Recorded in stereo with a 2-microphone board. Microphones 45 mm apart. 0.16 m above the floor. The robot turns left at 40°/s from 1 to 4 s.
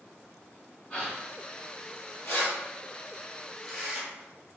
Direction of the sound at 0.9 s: 25° left (ahead or behind).